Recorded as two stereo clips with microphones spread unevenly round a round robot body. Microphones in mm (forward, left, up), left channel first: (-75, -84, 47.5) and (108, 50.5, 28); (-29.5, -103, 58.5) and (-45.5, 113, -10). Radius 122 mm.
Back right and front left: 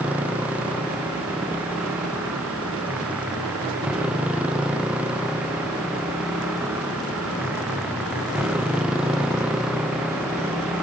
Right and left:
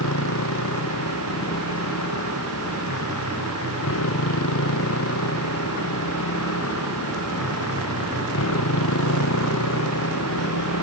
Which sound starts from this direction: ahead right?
A motorcycle, at 0.0 s.